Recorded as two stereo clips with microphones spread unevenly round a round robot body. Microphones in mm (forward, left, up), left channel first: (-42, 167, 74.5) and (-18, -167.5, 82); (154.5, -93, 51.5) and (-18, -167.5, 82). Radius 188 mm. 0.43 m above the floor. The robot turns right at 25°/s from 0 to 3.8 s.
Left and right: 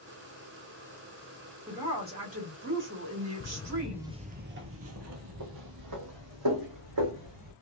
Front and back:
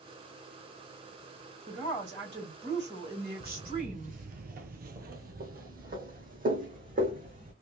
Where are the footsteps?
130° left, 0.5 m; by 7.5 s 115° right, 2.5 m.